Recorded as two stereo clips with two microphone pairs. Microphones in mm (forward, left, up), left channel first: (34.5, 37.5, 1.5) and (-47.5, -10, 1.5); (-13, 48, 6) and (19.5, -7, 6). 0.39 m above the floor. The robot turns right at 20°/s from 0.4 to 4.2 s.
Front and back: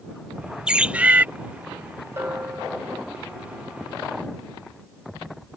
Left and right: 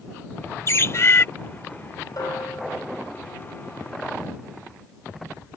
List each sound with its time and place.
0.7 s a bird: 135° left; by 1.3 s 145° left
2.2 s a bell: 145° left; by 3.0 s 165° left